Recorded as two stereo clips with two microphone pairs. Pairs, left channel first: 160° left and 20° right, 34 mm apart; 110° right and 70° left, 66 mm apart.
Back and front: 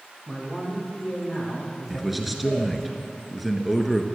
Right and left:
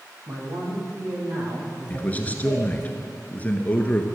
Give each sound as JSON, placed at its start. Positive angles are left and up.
{"t": 0.3, "sound": "a man speaking", "azimuth_deg": 70, "distance_m": 4.0}
{"t": 1.9, "sound": "a man speaking", "azimuth_deg": -110, "distance_m": 1.2}